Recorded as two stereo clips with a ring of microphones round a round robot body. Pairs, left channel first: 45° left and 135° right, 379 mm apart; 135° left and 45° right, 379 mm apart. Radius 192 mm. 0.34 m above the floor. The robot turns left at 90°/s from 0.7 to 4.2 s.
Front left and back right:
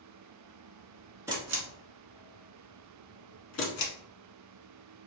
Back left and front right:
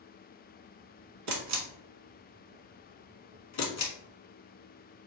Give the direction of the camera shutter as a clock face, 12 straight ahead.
2 o'clock.